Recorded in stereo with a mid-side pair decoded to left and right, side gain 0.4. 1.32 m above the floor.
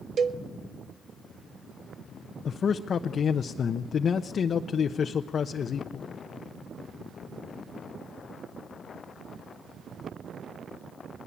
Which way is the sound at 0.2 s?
55° right.